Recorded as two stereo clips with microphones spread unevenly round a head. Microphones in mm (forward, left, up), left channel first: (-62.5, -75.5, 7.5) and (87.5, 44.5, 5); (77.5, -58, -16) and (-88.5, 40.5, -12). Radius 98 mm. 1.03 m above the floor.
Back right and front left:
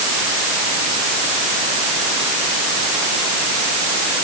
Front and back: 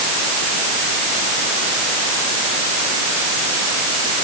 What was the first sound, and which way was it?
Only background noise.